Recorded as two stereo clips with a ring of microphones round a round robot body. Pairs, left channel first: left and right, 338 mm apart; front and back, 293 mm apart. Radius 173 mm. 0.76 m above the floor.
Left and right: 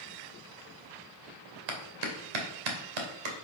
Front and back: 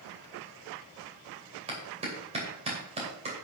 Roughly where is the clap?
Right.